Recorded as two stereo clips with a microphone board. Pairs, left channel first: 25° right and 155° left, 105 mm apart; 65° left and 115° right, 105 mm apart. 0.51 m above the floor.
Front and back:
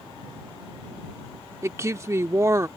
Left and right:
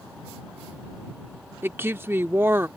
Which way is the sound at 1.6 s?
165° right.